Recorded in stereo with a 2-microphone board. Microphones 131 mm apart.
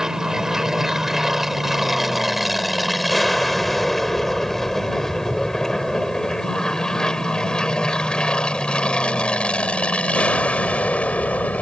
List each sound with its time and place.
0.0 s an aircraft: 5° right (ahead or behind); by 11.6 s 10° left (ahead or behind)